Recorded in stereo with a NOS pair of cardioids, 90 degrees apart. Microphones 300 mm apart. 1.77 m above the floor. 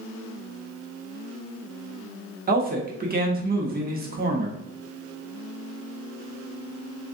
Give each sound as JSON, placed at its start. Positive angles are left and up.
{"t": 2.5, "sound": "a man speaking", "azimuth_deg": -30, "distance_m": 1.1}